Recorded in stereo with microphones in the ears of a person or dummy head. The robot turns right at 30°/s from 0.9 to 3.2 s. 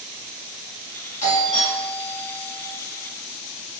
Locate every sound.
1.2 s a doorbell: 135° left, 1.8 m; by 2.6 s 175° left, 1.8 m